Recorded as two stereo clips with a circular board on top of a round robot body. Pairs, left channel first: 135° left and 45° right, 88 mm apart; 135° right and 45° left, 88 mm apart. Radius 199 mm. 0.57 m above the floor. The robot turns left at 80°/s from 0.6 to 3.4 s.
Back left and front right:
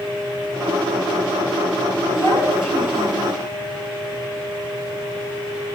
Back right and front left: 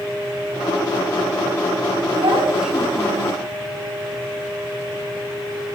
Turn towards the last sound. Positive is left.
turn(degrees=-20)